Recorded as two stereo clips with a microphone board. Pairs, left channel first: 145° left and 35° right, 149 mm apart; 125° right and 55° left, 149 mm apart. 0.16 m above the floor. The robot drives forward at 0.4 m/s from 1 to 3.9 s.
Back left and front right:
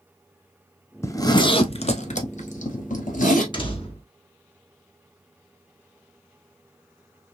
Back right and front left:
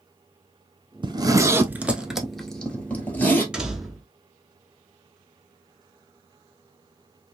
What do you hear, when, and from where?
1.0 s a zipper: 85° left, 0.5 m; by 3.4 s 160° left, 1.1 m
3.5 s a door slam: 135° left, 0.8 m; by 4.1 s 145° left, 0.9 m